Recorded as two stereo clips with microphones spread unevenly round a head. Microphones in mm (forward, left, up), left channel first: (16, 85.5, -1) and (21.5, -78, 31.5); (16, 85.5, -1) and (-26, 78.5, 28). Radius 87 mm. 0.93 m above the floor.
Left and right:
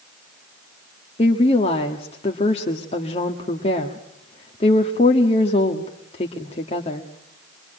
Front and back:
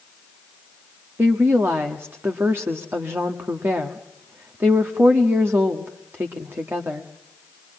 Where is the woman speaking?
145° left, 1.5 m.